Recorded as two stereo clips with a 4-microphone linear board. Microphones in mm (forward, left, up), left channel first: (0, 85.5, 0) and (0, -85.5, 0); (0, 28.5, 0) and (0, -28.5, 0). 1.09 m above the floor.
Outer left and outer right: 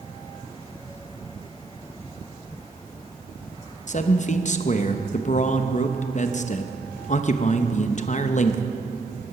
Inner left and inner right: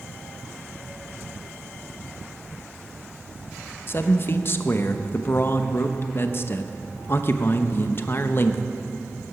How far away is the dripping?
No dripping in this recording.